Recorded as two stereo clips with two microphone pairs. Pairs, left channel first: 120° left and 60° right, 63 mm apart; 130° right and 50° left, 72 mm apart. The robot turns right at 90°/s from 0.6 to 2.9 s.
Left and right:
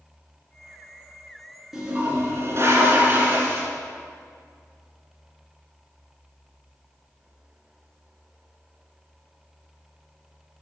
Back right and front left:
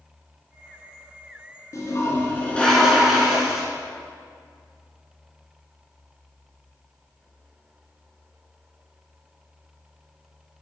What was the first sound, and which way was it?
A toilet flushing, 135° right.